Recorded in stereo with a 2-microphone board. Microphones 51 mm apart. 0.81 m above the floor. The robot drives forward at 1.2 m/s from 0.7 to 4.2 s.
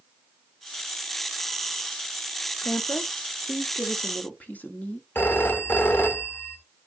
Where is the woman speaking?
55° left (ahead or behind), 1.5 m; by 5.0 s 35° left (ahead or behind), 2 m.